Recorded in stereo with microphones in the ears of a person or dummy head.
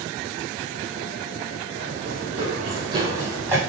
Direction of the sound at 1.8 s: 50° right (ahead or behind).